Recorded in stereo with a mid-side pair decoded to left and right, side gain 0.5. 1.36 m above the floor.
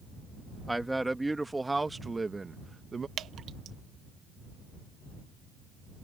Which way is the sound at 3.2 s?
55° right.